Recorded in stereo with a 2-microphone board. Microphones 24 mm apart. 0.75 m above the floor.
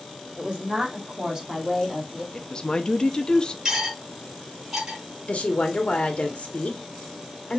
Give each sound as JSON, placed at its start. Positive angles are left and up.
{"t": 0.4, "sound": "a woman speaking", "side_deg": -45, "distance_m": 2.0}
{"t": 2.3, "sound": "a woman speaking", "side_deg": 35, "distance_m": 0.7}
{"t": 3.6, "sound": "cutlery clinking", "side_deg": -20, "distance_m": 3.5}
{"t": 5.3, "sound": "a woman speaking", "side_deg": 55, "distance_m": 1.4}